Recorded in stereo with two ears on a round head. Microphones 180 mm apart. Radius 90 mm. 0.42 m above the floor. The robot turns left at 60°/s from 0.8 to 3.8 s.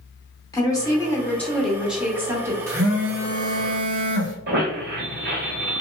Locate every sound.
0.5 s a woman speaking: 20° left (ahead or behind), 0.8 m; by 2.6 s 15° right (ahead or behind), 0.8 m
2.7 s a phone buzzing: 35° right, 1.5 m; by 4.3 s 105° right, 1.5 m
4.5 s a squeak: 55° right (ahead or behind), 1.3 m